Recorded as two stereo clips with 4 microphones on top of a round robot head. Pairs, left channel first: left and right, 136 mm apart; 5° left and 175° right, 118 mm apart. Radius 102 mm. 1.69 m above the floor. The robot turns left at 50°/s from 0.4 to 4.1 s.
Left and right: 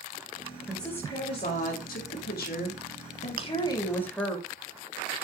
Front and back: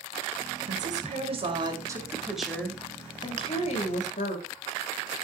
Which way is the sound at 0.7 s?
175° right.